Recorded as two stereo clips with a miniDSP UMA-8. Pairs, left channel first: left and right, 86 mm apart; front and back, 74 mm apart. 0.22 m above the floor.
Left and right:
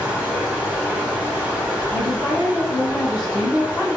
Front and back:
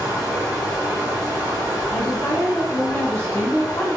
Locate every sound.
0.0 s running water: 140° right, 1.7 m
1.9 s a woman speaking: 25° left, 1.1 m